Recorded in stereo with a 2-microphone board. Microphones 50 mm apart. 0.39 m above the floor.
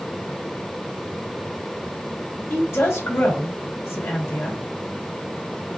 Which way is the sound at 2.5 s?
60° left (ahead or behind).